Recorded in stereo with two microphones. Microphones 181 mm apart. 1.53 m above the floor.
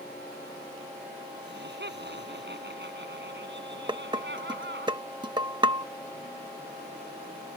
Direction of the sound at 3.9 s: 25° right (ahead or behind).